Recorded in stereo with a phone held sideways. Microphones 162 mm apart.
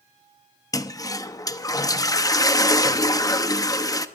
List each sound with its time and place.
0.7 s a toilet flushing: 20° left (ahead or behind), 0.7 m